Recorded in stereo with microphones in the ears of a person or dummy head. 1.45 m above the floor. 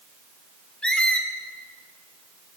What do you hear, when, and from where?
0.8 s a squeak: 5° left (ahead or behind), 1.4 m